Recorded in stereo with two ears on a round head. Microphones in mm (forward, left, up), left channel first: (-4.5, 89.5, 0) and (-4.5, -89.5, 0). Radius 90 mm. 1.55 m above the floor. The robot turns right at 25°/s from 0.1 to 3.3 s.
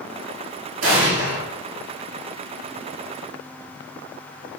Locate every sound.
0.8 s an explosion: 70° right (ahead or behind), 1.2 m; by 1.4 s 55° right (ahead or behind), 1.2 m